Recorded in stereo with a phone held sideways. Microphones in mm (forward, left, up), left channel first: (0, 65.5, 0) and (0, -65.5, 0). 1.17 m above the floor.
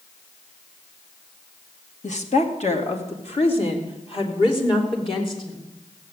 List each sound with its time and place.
2.0 s a woman speaking: 60° left (ahead or behind), 2 m; by 5.7 s 40° left (ahead or behind), 4 m